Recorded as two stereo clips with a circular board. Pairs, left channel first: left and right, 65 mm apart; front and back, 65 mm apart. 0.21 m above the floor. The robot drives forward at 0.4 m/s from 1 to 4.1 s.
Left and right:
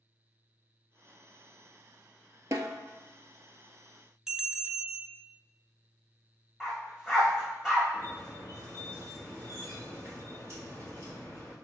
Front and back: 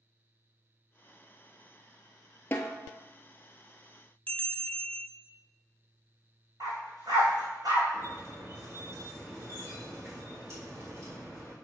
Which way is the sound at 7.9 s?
135° right.